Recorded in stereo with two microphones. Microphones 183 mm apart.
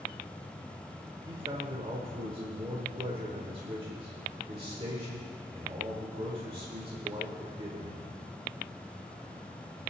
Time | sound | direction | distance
1.3 | a man speaking | 30° right (ahead or behind) | 1.4 m